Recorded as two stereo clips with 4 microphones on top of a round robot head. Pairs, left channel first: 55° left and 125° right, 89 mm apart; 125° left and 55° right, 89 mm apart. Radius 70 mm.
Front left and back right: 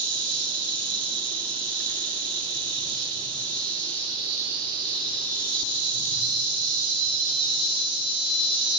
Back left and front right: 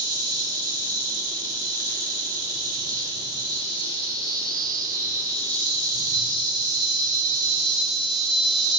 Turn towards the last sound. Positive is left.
turn(degrees=-95)